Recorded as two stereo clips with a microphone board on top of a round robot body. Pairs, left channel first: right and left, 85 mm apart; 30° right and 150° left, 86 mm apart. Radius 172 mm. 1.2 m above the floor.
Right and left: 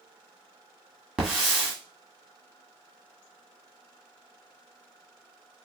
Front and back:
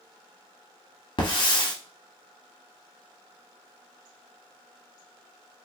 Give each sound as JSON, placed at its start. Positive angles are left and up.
{"t": 1.2, "sound": "a hiss", "azimuth_deg": 5, "distance_m": 1.5}